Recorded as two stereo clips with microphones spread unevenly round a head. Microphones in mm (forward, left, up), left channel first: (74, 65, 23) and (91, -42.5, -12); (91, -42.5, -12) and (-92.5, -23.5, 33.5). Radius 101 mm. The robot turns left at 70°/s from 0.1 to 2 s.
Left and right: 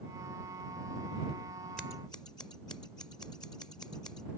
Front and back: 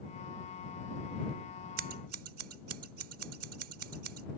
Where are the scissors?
170° right; by 4.3 s 170° left.